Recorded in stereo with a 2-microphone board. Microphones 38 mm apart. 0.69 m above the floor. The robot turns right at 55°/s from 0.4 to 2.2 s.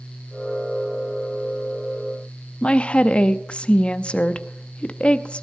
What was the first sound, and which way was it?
A woman speaking, 30° left (ahead or behind).